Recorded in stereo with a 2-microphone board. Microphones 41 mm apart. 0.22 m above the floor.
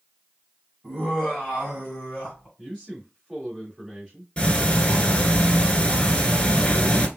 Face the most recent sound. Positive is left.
turn(degrees=25)  # may be behind; listen again after turning